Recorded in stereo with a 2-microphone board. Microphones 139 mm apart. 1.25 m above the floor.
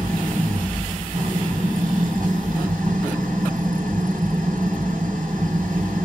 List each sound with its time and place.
0.0 s an engine running: 80° right, 5.5 m